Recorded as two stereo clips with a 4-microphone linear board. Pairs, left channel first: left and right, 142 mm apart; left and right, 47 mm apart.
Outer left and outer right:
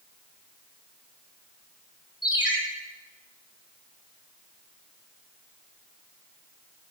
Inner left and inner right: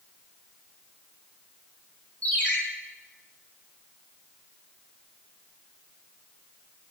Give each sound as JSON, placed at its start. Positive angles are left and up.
{"t": 2.2, "sound": "a ringtone", "side_deg": 30, "distance_m": 5.0}